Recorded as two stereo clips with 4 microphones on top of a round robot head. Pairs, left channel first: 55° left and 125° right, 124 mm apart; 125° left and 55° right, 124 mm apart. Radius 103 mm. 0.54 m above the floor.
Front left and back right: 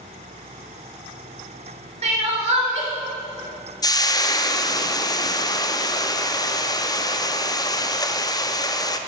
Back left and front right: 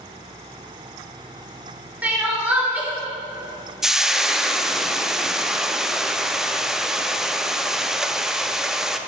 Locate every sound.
2.0 s crying: 130° right, 2 m
3.8 s frying: 30° left, 0.6 m